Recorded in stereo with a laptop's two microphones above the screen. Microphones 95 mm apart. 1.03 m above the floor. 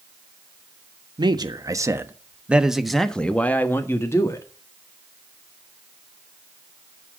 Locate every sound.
1.2 s a man speaking: 50° right (ahead or behind), 1.2 m; by 4.5 s 35° left (ahead or behind), 1.5 m